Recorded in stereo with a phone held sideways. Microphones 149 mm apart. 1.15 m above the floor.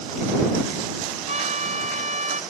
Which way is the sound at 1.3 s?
50° right (ahead or behind).